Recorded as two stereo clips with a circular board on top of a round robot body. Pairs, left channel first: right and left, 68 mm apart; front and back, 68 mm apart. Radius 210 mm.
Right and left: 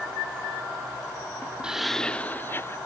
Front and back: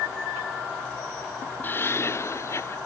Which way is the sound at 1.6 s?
25° left.